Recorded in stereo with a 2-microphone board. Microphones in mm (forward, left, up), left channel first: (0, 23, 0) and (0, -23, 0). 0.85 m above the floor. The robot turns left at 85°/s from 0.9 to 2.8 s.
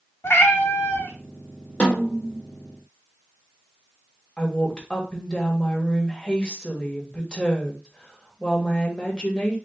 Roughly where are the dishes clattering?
I don't hear dishes clattering.